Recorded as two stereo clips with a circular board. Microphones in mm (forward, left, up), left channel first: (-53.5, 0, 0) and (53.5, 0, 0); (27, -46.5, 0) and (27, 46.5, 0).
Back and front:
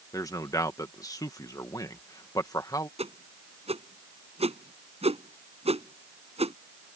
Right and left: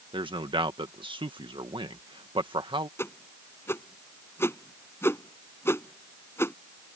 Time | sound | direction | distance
0.1 | a man speaking | 120° left | ?
3.0 | a whoosh | 25° right | ?